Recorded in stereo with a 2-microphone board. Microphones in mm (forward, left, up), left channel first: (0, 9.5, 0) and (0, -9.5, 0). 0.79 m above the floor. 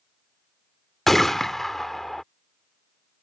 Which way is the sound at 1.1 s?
20° left (ahead or behind).